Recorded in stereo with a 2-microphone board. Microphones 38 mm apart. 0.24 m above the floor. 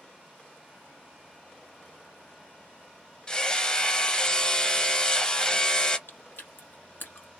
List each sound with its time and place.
3.3 s hammering: 20° left (ahead or behind), 0.6 m
6.1 s chewing: 75° left (ahead or behind), 1.4 m